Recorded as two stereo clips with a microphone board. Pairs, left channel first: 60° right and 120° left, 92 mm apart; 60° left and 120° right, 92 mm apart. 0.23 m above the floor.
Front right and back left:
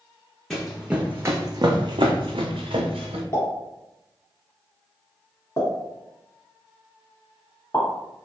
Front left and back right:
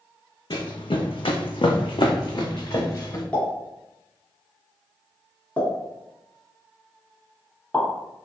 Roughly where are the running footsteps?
Ahead left.